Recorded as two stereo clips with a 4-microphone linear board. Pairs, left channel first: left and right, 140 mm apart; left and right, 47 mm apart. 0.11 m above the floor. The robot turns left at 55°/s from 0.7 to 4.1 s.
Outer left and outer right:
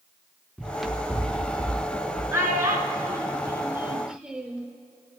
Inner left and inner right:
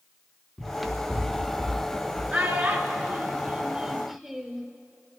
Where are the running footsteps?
Centre (ahead or behind), 0.9 m; by 2.2 s 60° left (ahead or behind), 2.5 m.